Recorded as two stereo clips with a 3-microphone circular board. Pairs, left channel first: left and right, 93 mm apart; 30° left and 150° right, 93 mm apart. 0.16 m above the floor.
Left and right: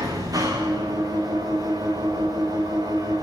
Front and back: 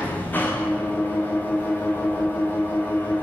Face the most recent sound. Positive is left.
turn(degrees=-40)